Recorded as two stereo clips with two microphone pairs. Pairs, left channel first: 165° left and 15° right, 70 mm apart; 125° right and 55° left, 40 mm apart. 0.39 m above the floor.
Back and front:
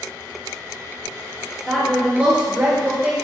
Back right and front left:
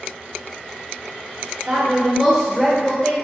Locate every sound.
1.7 s a woman speaking: 80° left, 1.0 m; by 3.1 s 60° right, 1.3 m